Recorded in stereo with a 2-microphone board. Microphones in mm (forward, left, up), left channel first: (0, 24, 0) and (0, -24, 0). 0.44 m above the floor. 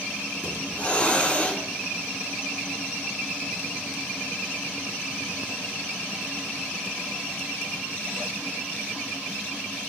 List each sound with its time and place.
0.4 s a hiss: 30° left (ahead or behind), 1.6 m